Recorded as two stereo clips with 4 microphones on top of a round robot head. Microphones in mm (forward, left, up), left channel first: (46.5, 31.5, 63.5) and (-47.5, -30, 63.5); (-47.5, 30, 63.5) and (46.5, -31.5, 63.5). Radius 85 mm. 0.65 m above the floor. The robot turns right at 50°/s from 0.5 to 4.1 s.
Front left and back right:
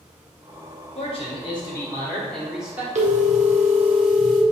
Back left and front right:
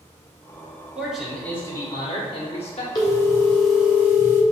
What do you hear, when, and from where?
0.9 s a man speaking: 45° left, 1.9 m; by 2.9 s 140° left, 1.9 m
3.0 s a phone ringing: 160° right, 1.3 m; by 4.4 s 105° right, 1.3 m